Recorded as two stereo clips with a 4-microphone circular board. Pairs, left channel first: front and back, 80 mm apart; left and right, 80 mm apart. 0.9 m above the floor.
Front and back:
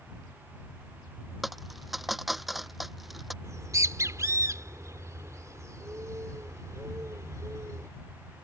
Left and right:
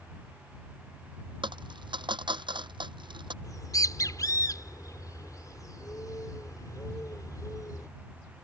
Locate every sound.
1.4 s a dropped coin: 90° right
3.4 s a bird: 135° left